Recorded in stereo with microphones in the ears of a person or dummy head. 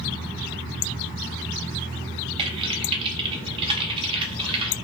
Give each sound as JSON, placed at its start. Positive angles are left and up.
{"t": 2.4, "sound": "typing on a keyboard", "side_deg": -30, "distance_m": 0.6}